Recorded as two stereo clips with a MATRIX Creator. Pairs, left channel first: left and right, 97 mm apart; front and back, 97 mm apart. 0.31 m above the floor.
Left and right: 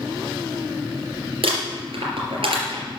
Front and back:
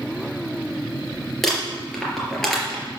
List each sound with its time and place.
1.4 s crumpling: 90° right, 3.5 m